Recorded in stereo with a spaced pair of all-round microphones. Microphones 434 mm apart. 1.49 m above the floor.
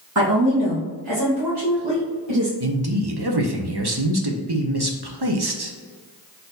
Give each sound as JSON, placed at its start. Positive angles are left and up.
{"t": 0.1, "sound": "a woman speaking", "side_deg": -45, "distance_m": 1.7}
{"t": 2.6, "sound": "a man speaking", "side_deg": -60, "distance_m": 0.7}